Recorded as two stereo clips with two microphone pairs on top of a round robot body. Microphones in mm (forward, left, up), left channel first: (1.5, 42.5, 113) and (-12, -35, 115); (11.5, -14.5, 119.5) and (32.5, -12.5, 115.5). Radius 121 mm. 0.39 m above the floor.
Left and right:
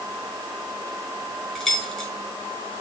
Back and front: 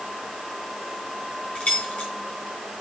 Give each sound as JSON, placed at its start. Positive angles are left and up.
{"t": 1.6, "sound": "keys jangling", "azimuth_deg": 160, "distance_m": 4.0}